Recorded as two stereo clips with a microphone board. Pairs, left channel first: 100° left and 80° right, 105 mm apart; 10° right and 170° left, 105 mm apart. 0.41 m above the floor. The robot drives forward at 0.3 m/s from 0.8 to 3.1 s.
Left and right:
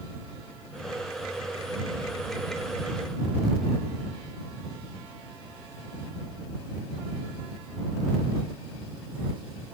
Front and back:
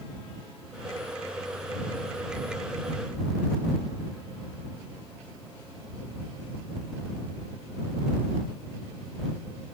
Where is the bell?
I don't hear a bell.